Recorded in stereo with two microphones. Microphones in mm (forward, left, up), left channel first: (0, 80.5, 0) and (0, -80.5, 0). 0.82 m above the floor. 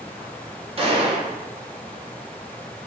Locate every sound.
0.8 s a gunshot: 35° right (ahead or behind), 0.6 m